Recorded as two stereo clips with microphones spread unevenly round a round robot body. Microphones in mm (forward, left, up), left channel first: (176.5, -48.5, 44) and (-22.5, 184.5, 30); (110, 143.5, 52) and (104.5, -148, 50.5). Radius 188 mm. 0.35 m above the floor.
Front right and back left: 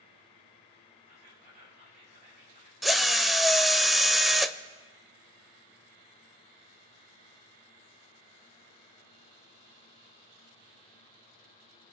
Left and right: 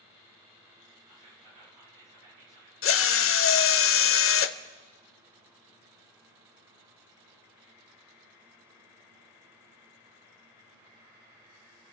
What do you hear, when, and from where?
1.1 s whispering: 160° right, 6 m
2.8 s a drill: 40° left, 0.7 m